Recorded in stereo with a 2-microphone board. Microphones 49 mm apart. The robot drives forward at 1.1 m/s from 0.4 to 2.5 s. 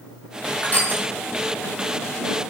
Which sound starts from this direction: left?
Crushing, at 0.6 s.